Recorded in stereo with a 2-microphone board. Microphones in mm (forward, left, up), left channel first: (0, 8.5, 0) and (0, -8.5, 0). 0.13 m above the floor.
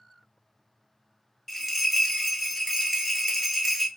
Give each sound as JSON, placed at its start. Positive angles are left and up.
{"t": 1.5, "sound": "a bell", "side_deg": 10, "distance_m": 0.6}